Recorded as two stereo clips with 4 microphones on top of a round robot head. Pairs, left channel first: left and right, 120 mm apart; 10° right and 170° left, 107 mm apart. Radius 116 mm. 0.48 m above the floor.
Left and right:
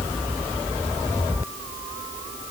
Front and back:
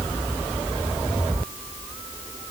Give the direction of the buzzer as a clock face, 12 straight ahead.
No buzzer in this recording.